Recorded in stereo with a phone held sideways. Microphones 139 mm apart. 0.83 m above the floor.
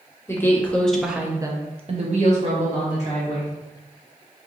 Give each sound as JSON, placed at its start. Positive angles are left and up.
{"t": 0.3, "sound": "a woman speaking", "side_deg": 20, "distance_m": 1.0}